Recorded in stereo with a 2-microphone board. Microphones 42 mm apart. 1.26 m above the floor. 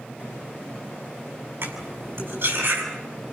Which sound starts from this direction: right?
Cutlery clinking, at 1.6 s.